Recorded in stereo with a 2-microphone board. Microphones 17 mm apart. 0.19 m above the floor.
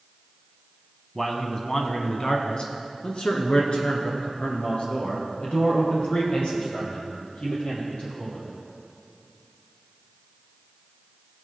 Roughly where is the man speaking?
Centre.